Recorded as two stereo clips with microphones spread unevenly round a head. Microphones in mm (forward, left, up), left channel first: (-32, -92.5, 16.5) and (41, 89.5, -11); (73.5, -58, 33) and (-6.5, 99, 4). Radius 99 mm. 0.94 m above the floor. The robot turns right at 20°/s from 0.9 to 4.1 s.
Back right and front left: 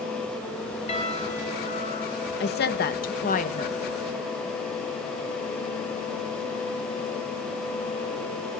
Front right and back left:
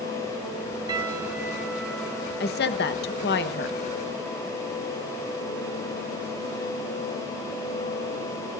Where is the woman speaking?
85° right, 1.2 m; by 3.8 s 55° right, 1.2 m.